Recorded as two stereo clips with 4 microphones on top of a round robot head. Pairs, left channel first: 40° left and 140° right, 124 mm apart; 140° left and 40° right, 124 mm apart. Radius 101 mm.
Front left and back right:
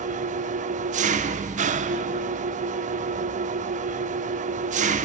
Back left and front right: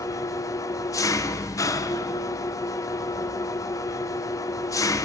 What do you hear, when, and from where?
0.0 s an engine running: 160° right, 0.9 m